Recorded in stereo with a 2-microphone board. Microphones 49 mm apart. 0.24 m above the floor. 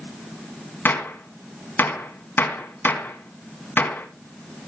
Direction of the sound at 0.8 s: 40° left (ahead or behind).